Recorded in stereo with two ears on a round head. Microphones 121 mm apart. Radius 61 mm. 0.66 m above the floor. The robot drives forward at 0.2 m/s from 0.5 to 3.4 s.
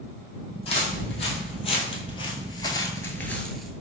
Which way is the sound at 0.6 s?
45° left (ahead or behind).